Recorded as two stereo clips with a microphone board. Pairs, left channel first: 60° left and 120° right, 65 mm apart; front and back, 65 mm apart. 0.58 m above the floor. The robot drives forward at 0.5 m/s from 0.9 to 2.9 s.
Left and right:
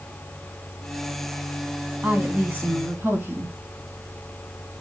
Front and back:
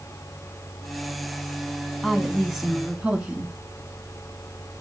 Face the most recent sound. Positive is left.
turn(degrees=-135)